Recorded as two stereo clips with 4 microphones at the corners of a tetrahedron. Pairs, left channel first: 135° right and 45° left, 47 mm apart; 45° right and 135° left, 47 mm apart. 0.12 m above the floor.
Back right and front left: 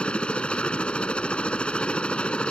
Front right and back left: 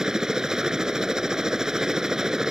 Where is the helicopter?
165° right.